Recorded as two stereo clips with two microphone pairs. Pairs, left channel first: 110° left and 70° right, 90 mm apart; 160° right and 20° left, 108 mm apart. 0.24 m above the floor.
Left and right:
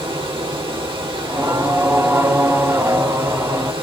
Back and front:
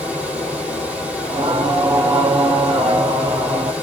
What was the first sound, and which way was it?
Running water, 60° right.